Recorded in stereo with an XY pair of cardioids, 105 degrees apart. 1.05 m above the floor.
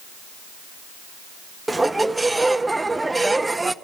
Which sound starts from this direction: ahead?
A squeak, at 1.7 s.